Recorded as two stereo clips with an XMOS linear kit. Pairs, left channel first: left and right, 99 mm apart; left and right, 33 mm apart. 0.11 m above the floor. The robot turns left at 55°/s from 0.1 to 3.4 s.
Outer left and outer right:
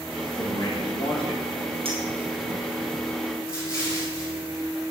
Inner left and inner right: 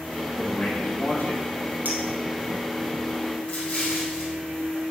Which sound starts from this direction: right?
A clink, at 1.9 s.